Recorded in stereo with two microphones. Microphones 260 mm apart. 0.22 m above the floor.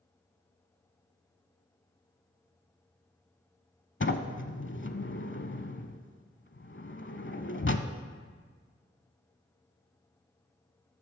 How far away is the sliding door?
About 0.7 m.